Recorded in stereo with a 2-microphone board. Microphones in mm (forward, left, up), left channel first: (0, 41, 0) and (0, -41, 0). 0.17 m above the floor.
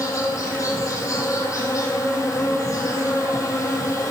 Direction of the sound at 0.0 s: 40° left (ahead or behind).